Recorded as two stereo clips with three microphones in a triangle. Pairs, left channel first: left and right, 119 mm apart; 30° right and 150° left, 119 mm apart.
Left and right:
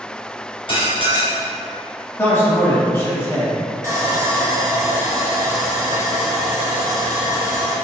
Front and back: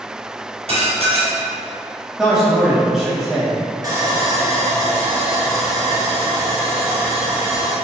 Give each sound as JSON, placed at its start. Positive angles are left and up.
{"t": 0.7, "sound": "dishes clattering", "azimuth_deg": 130, "distance_m": 1.7}
{"t": 2.2, "sound": "a man speaking", "azimuth_deg": 70, "distance_m": 0.9}
{"t": 3.8, "sound": "sawing", "azimuth_deg": -150, "distance_m": 1.2}